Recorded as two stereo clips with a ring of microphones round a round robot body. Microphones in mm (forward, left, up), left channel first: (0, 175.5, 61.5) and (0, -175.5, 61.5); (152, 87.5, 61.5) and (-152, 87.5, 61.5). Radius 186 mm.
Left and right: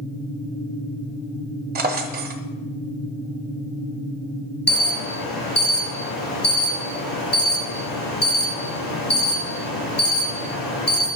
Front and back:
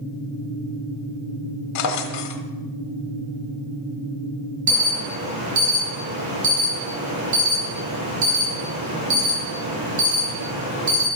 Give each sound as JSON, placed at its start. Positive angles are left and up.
{"t": 1.8, "sound": "a drawer", "azimuth_deg": -25, "distance_m": 1.0}
{"t": 4.7, "sound": "an alarm", "azimuth_deg": 155, "distance_m": 6.5}